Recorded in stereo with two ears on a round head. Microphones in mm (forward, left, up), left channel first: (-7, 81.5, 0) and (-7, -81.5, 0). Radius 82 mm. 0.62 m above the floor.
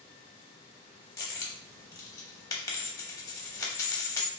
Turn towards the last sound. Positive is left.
turn(degrees=20)  # may be behind; listen again after turning